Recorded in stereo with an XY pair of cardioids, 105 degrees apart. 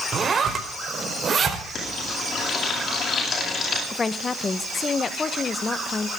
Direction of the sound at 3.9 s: 30° left.